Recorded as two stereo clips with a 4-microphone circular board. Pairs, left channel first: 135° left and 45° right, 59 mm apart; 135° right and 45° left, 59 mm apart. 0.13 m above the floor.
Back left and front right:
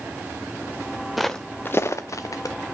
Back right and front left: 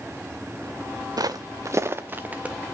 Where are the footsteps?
45° left, 0.5 m; by 2.5 s 115° left, 1.1 m.